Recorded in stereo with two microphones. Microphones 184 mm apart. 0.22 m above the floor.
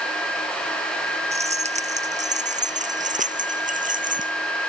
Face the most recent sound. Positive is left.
turn(degrees=-50)  # may be behind; listen again after turning